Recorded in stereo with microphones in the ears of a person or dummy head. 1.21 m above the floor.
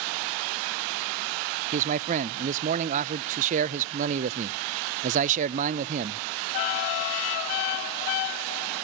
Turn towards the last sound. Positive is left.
turn(degrees=-40)  # may be behind; listen again after turning